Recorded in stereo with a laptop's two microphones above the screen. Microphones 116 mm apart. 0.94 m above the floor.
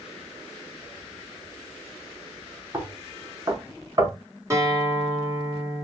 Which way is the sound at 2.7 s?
30° right (ahead or behind).